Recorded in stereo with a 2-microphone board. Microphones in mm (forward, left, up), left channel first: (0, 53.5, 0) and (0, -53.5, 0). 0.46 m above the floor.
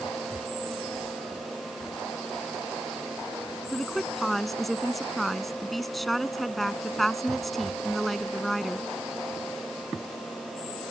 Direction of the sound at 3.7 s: Centre (ahead or behind).